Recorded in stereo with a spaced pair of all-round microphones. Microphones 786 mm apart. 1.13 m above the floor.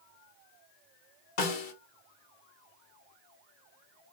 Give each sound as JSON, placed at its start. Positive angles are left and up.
{"t": 1.4, "sound": "a snare drum", "side_deg": 75, "distance_m": 1.1}